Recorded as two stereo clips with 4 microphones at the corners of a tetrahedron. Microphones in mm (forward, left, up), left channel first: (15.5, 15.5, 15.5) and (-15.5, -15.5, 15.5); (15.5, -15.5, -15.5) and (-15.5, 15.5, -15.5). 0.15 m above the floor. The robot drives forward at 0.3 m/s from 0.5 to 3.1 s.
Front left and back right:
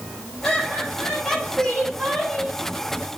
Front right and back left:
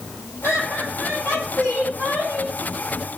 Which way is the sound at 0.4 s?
35° right.